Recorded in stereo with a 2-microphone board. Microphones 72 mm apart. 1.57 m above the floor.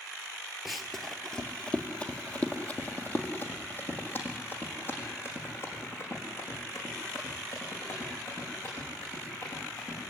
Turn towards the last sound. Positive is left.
turn(degrees=40)  # may be behind; listen again after turning